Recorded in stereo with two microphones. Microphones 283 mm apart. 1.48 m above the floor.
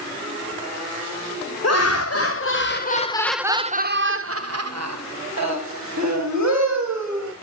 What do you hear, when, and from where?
1.6 s laughter: 65° left (ahead or behind), 1.2 m; by 7.3 s 80° right, 2.5 m